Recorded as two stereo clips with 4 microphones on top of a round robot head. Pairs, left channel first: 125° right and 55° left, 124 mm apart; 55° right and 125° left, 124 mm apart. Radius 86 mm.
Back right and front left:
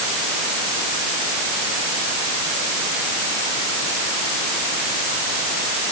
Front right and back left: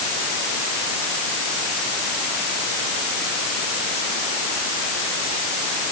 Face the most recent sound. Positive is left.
No sound to turn to.